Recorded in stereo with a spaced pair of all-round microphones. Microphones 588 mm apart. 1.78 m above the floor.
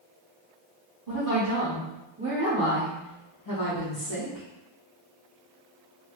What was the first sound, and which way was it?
A woman speaking, 35° right (ahead or behind).